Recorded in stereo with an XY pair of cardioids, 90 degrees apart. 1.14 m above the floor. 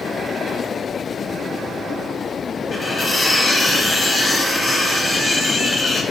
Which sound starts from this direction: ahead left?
Cutlery clinking, at 2.7 s.